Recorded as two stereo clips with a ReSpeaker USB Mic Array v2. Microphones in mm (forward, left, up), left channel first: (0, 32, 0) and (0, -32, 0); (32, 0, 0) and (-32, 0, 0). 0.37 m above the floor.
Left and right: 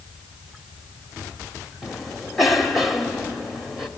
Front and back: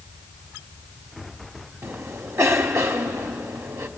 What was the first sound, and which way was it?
A cough, straight behind.